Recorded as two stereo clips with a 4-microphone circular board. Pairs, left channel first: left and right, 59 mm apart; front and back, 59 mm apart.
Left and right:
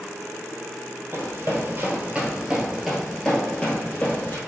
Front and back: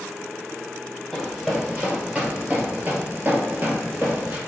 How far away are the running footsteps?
About 1.4 m.